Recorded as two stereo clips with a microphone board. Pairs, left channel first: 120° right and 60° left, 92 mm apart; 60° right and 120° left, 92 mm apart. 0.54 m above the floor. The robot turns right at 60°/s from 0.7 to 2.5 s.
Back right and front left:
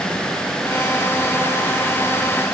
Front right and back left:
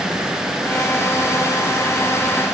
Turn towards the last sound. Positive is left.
No sound to turn to.